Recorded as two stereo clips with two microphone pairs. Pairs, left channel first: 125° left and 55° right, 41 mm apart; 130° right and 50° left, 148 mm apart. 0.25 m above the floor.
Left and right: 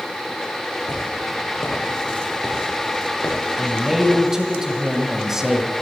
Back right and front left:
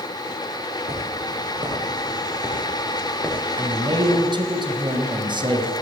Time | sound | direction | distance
0.9 | footsteps | 95° left | 4 m
3.6 | a man speaking | 15° left | 1.9 m